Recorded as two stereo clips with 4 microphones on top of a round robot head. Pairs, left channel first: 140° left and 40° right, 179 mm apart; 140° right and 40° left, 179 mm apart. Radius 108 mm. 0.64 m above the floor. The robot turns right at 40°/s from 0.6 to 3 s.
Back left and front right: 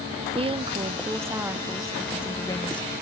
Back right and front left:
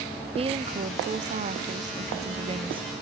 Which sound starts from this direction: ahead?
A woman speaking, at 0.3 s.